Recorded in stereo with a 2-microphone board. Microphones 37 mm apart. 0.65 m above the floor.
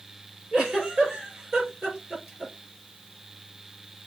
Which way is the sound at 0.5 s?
20° right (ahead or behind).